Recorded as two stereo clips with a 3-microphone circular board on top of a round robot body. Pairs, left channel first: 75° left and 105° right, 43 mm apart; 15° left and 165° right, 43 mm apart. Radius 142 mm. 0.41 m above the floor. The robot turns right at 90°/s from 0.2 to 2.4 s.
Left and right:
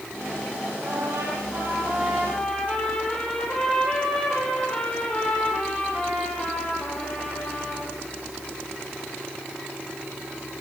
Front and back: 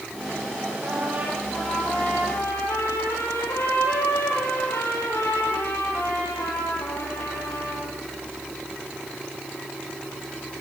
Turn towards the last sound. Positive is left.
turn(degrees=0)